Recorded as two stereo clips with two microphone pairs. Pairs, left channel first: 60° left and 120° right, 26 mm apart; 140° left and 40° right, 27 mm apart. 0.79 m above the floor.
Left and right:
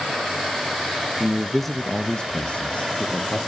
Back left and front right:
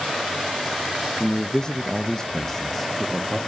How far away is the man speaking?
About 0.5 m.